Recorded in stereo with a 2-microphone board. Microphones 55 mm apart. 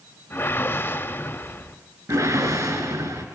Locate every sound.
0.3 s a whoosh: 45° left (ahead or behind), 2.0 m
2.1 s a whoosh: 80° right, 3.5 m